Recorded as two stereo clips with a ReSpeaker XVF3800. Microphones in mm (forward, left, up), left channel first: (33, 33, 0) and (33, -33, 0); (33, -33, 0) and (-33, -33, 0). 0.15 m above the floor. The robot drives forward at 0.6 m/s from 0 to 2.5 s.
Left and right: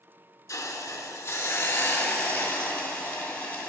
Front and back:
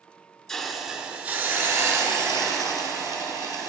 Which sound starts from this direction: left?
A hiss, at 0.5 s.